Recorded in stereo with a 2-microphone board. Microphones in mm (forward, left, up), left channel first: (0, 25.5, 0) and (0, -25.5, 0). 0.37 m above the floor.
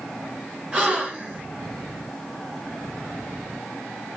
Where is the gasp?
20° right (ahead or behind), 1.4 m.